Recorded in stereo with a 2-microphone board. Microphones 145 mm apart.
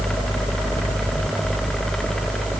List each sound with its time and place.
Only background noise.